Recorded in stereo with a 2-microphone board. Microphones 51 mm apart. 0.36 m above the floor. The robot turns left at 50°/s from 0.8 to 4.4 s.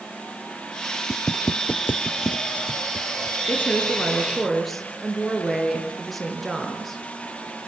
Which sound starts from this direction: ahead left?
A woman speaking, at 3.5 s.